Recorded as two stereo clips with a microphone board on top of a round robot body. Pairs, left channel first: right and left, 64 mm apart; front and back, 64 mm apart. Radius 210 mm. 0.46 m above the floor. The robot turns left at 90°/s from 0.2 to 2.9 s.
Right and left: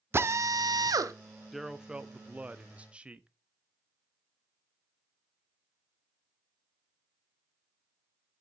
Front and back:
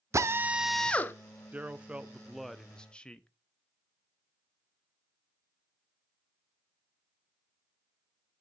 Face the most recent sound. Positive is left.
turn(degrees=50)